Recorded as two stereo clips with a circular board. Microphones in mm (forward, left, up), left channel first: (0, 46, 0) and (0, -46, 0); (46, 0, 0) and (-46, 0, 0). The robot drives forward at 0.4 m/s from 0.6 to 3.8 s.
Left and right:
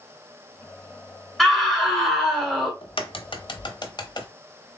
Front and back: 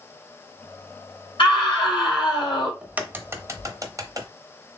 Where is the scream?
5° left, 2.5 m.